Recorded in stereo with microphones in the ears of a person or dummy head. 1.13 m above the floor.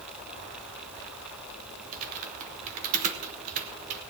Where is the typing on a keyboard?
40° right (ahead or behind), 1.2 m.